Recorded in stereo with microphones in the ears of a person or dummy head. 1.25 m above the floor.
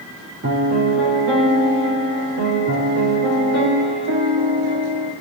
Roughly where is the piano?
Right.